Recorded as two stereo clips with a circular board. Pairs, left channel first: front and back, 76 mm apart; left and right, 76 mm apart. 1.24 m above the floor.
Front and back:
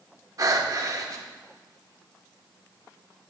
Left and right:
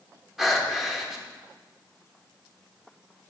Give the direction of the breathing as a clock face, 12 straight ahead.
6 o'clock.